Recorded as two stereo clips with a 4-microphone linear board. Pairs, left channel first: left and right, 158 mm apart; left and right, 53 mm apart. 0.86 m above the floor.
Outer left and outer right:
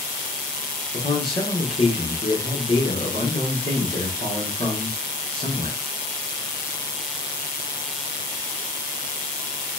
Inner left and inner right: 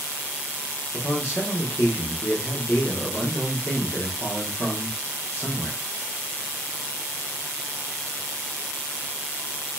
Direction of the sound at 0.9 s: 45° left (ahead or behind).